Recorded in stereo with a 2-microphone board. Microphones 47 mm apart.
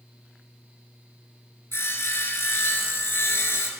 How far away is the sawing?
About 0.9 m.